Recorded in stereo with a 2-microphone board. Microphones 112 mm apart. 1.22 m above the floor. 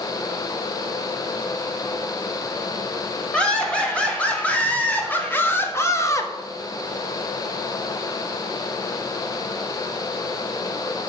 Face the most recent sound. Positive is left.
turn(degrees=30)  # may be behind; listen again after turning